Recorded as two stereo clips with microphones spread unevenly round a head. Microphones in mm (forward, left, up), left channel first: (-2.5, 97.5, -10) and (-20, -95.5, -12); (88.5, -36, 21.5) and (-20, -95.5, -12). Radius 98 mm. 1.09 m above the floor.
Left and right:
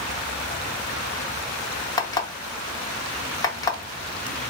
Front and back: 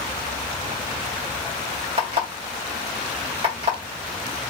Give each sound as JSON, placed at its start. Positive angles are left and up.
{"t": 2.0, "sound": "an alarm clock", "azimuth_deg": 150, "distance_m": 0.8}